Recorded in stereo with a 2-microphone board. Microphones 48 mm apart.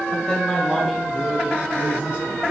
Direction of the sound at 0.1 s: 20° left (ahead or behind).